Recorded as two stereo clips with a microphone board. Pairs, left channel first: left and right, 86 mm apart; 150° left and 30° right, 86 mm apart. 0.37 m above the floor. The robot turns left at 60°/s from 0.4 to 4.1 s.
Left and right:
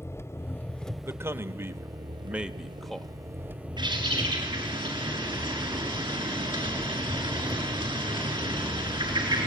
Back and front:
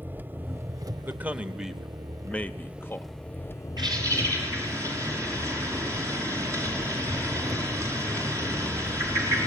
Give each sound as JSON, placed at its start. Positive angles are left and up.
{"t": 0.0, "sound": "an engine running", "azimuth_deg": 35, "distance_m": 0.8}
{"t": 1.0, "sound": "a man speaking", "azimuth_deg": -75, "distance_m": 0.9}
{"t": 3.8, "sound": "a bird", "azimuth_deg": -65, "distance_m": 5.5}